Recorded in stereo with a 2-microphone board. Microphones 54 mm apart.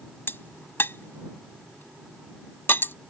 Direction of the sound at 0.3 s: 45° left (ahead or behind).